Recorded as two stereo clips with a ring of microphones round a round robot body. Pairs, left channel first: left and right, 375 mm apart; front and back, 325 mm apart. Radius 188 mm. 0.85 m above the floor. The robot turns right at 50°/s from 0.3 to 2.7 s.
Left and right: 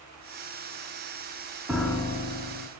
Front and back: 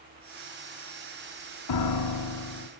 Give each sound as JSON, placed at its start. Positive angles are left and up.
{"t": 1.7, "sound": "a piano", "azimuth_deg": -5, "distance_m": 1.4}